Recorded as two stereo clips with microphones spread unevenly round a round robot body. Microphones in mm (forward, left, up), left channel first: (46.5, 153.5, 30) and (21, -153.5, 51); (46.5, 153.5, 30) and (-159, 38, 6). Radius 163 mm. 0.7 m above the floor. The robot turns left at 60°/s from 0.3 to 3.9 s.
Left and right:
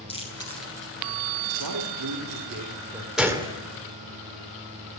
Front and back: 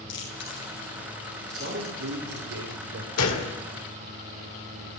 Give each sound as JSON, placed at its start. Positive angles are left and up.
{"t": 0.1, "sound": "chewing", "azimuth_deg": 15, "distance_m": 8.5}
{"t": 1.6, "sound": "a man speaking", "azimuth_deg": -95, "distance_m": 2.5}
{"t": 3.2, "sound": "a gunshot", "azimuth_deg": -5, "distance_m": 1.9}